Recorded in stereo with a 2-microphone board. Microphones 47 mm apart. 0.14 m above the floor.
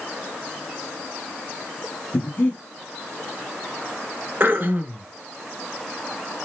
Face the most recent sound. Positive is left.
turn(degrees=-40)  # may be behind; listen again after turning